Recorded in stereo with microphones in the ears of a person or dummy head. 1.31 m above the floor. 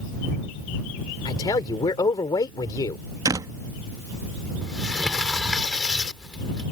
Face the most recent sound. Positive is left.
turn(degrees=0)  # may be behind; listen again after turning